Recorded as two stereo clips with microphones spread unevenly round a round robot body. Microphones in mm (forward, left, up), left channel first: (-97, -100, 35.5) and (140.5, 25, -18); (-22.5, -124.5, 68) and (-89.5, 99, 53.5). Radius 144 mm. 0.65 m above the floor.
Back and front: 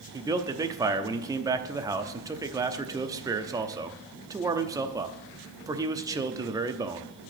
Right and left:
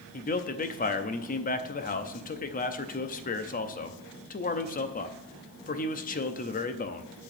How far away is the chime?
I don't hear a chime.